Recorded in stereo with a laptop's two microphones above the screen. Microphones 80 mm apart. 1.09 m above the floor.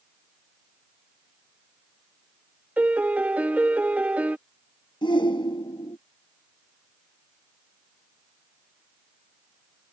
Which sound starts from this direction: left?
A shout, at 5.0 s.